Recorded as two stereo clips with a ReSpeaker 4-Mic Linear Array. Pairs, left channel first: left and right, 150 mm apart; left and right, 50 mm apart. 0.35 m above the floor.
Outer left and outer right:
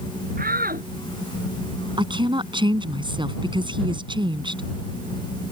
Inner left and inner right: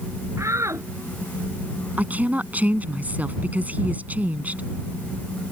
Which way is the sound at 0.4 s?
75° right (ahead or behind).